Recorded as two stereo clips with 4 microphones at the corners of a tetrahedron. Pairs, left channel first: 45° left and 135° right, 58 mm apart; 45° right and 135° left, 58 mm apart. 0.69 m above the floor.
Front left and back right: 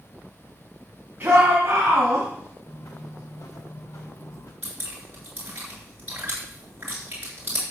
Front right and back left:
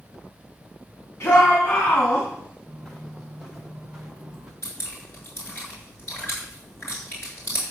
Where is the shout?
80° right, 4.5 m; by 2.3 s 95° right, 4 m.